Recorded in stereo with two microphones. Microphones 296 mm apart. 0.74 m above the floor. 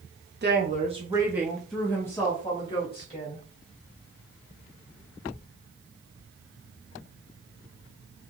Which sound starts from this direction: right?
A woman speaking, at 0.4 s.